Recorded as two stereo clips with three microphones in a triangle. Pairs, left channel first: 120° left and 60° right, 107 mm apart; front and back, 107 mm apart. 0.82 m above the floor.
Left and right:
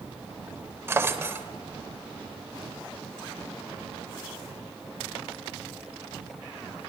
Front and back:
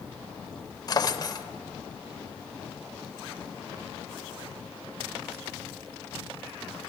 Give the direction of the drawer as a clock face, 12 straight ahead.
12 o'clock.